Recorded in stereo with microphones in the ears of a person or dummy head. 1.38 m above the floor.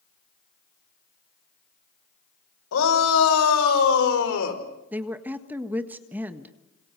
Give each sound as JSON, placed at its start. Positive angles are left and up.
{"t": 2.7, "sound": "a shout", "side_deg": 85, "distance_m": 5.5}
{"t": 4.9, "sound": "a woman speaking", "side_deg": -10, "distance_m": 1.6}